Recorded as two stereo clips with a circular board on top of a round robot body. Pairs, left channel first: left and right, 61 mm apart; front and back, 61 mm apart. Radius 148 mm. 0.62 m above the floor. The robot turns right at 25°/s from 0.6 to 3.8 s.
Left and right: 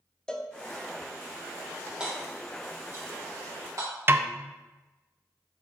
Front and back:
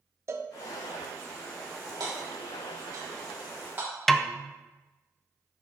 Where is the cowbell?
165° left, 0.7 m.